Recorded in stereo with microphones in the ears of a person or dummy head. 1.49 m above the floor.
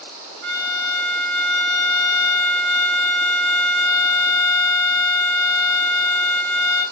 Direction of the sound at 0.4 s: 80° right.